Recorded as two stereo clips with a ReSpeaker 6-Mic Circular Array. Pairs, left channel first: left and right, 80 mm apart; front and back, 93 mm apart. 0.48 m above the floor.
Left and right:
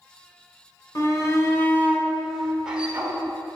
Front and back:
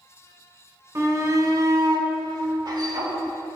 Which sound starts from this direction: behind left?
A shout, at 0.9 s.